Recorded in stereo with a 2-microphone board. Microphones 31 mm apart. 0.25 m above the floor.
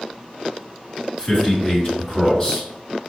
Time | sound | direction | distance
1.2 | a man speaking | 40° left (ahead or behind) | 2 m